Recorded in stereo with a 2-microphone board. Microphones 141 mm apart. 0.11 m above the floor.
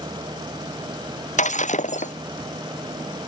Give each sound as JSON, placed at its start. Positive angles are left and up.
{"t": 1.4, "sound": "breaking glass", "side_deg": 60}